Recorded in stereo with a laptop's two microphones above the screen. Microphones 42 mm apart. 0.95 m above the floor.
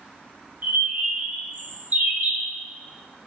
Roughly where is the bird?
Right.